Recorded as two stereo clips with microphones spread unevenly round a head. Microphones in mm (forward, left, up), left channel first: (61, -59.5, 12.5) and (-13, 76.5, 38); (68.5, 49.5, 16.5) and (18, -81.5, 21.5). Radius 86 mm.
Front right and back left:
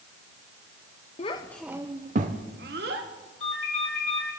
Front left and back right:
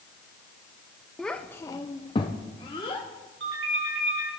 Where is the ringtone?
125° right, 5.5 m.